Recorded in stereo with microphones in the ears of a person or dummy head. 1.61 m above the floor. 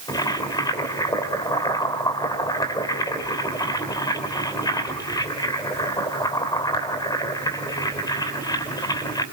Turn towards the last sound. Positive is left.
turn(degrees=20)  # may be behind; listen again after turning